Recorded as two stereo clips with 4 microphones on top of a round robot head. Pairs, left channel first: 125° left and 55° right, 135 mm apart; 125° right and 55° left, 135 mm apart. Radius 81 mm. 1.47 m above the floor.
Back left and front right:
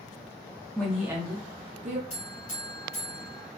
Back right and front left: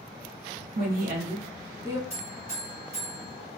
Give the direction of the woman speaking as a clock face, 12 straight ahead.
11 o'clock.